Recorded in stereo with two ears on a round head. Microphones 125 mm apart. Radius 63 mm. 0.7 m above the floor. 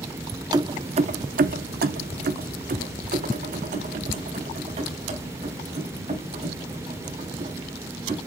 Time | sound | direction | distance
0.5 | keys jangling | 30° right (ahead or behind) | 0.7 m